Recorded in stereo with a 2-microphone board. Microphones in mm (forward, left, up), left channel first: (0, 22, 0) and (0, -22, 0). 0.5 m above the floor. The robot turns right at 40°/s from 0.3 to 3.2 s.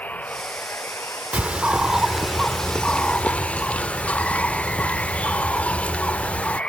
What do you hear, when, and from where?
0.0 s running water: 35° left; by 6.7 s 150° left
1.3 s a bird: 40° right; by 6.6 s 35° left